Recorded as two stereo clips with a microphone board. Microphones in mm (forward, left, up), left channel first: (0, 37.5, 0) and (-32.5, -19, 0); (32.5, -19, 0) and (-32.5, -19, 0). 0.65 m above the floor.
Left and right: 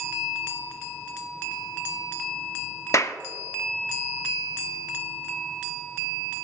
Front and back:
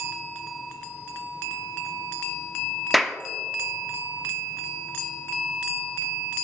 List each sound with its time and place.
2.9 s a clap: 90° left, 0.6 m